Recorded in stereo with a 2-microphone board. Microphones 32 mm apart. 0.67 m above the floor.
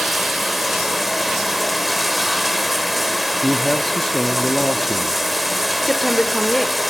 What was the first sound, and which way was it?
Running water, 10° right (ahead or behind).